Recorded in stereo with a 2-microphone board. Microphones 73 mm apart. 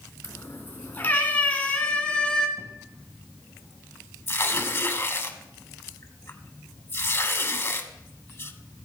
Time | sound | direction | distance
0.2 | a cat meowing | 35° left (ahead or behind) | 2.5 m
2.6 | an explosion | 45° right (ahead or behind) | 2.5 m
4.3 | tearing paper | 35° left (ahead or behind) | 1.2 m